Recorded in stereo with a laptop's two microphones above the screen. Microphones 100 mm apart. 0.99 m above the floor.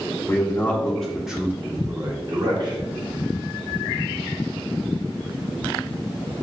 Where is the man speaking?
25° left (ahead or behind), 1.0 m; by 2.8 s 50° right (ahead or behind), 1.2 m.